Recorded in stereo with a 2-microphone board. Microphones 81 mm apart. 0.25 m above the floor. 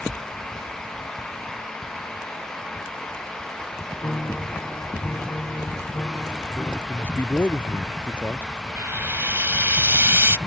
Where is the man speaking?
25° left (ahead or behind).